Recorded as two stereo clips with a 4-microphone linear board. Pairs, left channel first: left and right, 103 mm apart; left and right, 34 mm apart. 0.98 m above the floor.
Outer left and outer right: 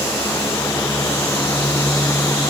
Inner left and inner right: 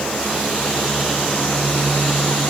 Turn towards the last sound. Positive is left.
No sound to turn to.